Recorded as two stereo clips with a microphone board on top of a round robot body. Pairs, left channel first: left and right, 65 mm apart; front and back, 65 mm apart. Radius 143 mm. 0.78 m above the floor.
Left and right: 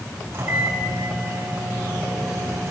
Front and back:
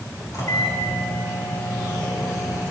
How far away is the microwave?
About 6 m.